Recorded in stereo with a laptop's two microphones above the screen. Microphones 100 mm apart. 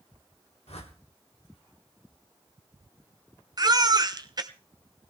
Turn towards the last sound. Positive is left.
turn(degrees=-40)  # may be behind; listen again after turning